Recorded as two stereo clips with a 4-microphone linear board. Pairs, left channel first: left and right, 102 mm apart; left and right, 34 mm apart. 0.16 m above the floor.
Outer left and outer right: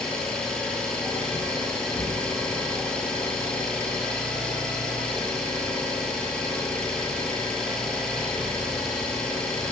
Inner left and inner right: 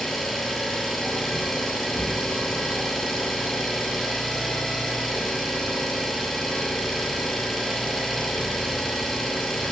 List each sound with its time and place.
0.0 s an engine running: 10° left (ahead or behind), 3 m